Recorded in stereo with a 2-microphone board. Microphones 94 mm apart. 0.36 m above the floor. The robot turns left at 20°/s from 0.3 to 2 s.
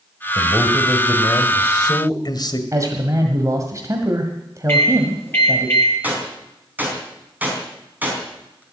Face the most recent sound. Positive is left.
turn(degrees=-15)  # may be behind; listen again after turning